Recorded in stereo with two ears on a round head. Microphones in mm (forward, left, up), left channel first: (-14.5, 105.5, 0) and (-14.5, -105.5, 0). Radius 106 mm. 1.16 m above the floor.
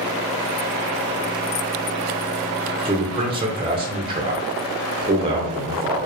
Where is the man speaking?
20° right (ahead or behind), 0.7 m.